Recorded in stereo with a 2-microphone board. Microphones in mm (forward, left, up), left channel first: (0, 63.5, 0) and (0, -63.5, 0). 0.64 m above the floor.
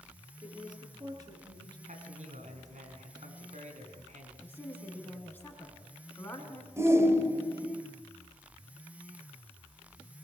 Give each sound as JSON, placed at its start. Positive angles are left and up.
{"t": 0.4, "sound": "a woman speaking", "side_deg": -35, "distance_m": 9.5}
{"t": 1.9, "sound": "a man speaking", "side_deg": -70, "distance_m": 5.5}
{"t": 4.4, "sound": "a woman speaking", "side_deg": 15, "distance_m": 6.5}
{"t": 6.8, "sound": "a shout", "side_deg": -20, "distance_m": 3.0}